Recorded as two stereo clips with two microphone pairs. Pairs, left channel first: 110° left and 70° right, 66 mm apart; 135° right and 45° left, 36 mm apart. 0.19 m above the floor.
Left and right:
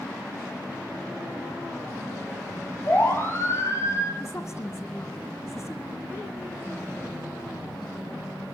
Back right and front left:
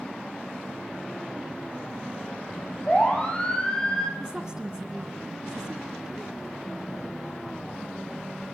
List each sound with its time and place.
2.9 s a siren: 165° left, 6 m; by 4.1 s 150° left, 5 m
4.2 s a woman speaking: 105° left, 1.9 m